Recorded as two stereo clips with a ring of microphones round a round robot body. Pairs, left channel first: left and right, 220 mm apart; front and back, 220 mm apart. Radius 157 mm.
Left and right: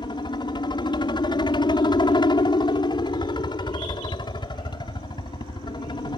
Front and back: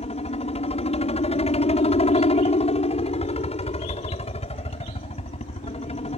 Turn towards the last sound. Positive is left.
turn(degrees=35)